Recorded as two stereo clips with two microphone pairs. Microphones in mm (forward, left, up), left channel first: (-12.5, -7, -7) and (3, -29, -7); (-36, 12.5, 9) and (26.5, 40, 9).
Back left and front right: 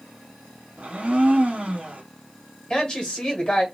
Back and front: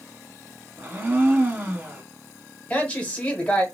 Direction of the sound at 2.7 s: 145° left.